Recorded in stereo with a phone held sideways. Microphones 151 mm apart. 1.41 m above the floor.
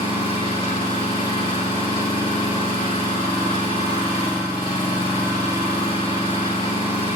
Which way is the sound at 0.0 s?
35° left (ahead or behind).